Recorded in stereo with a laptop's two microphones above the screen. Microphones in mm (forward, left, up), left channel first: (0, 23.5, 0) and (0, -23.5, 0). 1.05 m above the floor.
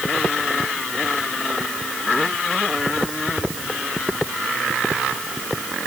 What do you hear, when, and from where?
Only background noise.